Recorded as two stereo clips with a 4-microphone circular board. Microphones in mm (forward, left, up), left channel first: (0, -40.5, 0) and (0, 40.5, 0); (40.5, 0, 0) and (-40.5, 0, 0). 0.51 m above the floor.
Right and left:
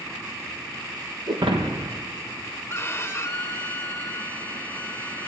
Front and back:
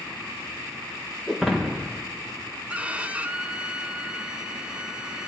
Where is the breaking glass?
90° left, 3.5 m.